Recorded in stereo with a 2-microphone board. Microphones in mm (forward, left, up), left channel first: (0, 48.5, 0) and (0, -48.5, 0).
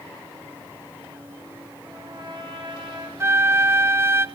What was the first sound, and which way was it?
A trumpet, 50° right (ahead or behind).